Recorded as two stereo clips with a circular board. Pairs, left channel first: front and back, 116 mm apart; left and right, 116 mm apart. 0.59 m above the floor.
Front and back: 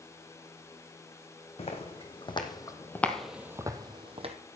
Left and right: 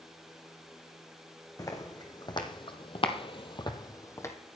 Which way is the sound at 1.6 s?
30° left.